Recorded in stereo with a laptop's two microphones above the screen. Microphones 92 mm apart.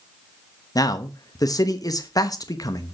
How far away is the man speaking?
About 1.0 m.